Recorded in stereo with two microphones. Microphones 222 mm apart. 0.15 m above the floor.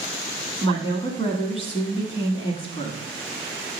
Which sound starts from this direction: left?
A woman speaking, at 0.6 s.